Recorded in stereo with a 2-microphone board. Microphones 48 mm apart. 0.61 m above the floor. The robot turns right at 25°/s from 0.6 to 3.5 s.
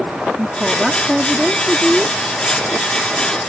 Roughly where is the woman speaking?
Ahead right.